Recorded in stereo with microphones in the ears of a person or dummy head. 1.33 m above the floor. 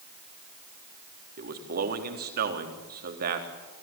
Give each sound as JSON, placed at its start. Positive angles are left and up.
{"t": 1.4, "sound": "a man speaking", "side_deg": -50, "distance_m": 3.5}